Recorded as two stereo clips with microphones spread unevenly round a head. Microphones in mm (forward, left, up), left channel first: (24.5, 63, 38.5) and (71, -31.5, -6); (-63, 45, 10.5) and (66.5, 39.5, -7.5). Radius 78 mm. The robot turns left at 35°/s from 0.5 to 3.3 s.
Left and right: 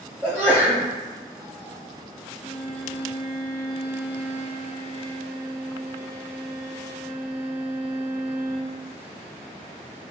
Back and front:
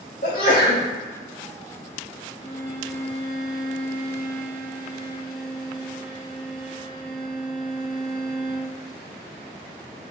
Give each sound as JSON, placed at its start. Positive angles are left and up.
{"t": 0.2, "sound": "a sneeze", "azimuth_deg": -140, "distance_m": 0.9}
{"t": 2.4, "sound": "a violin", "azimuth_deg": 115, "distance_m": 1.5}